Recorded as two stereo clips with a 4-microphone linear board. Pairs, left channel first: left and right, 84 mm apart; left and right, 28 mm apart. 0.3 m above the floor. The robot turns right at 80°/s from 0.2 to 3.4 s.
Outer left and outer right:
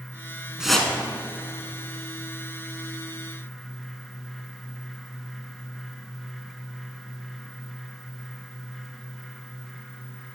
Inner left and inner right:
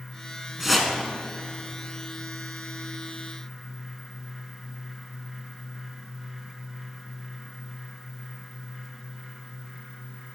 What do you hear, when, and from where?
0.6 s a whoosh: 10° right (ahead or behind), 0.6 m; by 0.9 s 20° left (ahead or behind), 0.6 m